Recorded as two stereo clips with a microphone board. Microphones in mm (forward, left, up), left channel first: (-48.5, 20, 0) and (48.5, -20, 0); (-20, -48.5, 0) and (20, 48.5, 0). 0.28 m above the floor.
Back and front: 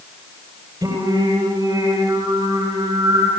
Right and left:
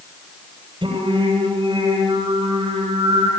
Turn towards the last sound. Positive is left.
turn(degrees=30)